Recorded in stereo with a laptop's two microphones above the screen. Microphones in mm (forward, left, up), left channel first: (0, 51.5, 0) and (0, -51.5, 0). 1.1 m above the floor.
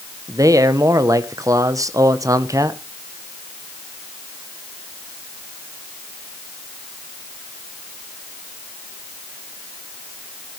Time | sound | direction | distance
0.3 | a man speaking | 30° right (ahead or behind) | 0.9 m